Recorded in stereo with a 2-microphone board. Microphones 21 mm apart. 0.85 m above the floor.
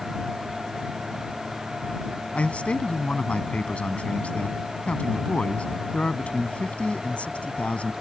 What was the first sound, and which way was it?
A man speaking, 75° left (ahead or behind).